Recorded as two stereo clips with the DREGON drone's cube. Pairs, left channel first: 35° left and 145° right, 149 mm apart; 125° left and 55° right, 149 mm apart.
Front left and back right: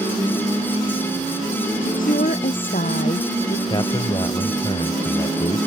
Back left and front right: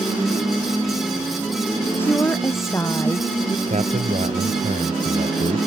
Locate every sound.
1.8 s a woman speaking: 50° left; by 3.6 s 60° left
3.7 s a man speaking: 20° right